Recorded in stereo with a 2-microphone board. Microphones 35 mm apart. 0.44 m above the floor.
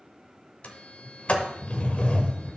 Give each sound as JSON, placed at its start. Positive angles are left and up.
{"t": 0.6, "sound": "a sliding door", "side_deg": 40, "distance_m": 1.0}